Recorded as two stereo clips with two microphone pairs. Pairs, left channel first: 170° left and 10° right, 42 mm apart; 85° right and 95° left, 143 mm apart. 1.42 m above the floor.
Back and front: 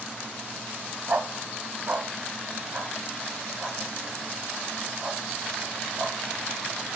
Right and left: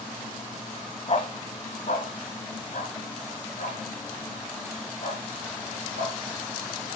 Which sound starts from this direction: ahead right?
A dog barking, at 1.1 s.